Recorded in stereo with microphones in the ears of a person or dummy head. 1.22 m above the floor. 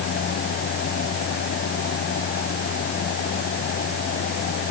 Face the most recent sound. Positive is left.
No sound to turn to.